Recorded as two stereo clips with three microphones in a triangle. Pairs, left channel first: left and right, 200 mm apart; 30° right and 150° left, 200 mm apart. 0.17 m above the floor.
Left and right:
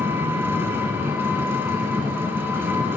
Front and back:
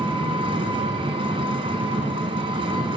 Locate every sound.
0.0 s an engine running: 160° right, 1.2 m